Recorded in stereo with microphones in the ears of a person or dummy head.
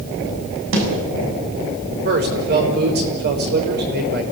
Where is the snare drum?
70° right (ahead or behind), 6.5 m.